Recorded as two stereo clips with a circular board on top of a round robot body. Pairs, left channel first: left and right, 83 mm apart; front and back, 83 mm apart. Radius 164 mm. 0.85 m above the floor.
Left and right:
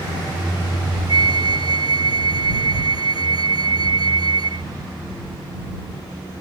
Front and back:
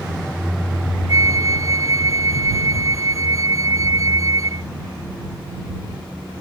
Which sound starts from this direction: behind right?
A flute, at 1.1 s.